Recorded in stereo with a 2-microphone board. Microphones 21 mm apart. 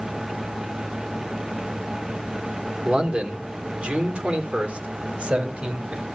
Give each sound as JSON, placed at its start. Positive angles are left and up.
{"t": 2.9, "sound": "a man speaking", "side_deg": -50, "distance_m": 2.5}